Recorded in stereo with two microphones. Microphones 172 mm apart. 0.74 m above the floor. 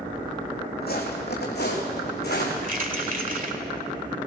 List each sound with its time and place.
0.8 s footsteps: 65° left (ahead or behind), 2.5 m; by 2.5 s 75° left (ahead or behind), 3.5 m
2.6 s keys jangling: 50° right (ahead or behind), 1.6 m